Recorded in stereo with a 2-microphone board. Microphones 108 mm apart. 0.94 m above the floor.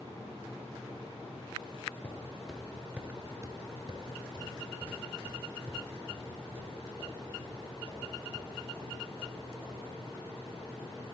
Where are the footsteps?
10° left (ahead or behind), 1.3 m; by 9.8 s 55° right (ahead or behind), 4.5 m.